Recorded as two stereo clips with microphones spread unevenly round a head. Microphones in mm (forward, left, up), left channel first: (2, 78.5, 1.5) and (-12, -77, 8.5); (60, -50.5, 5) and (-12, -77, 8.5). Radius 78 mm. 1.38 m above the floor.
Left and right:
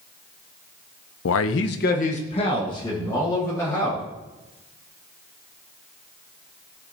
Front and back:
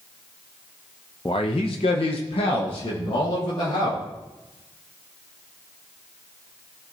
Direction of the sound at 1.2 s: 90° left.